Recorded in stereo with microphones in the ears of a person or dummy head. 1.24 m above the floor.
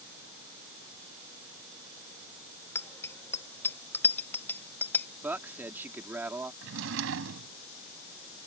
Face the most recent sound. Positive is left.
turn(degrees=-70)  # may be behind; listen again after turning